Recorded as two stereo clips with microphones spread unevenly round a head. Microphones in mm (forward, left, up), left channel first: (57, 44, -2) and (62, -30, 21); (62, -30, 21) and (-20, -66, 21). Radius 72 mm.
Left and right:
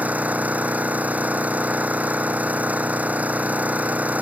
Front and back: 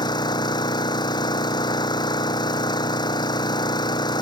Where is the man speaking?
No man speaking in this recording.